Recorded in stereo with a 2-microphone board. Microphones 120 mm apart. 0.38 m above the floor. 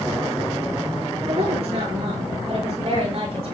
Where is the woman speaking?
60° right (ahead or behind), 8 m.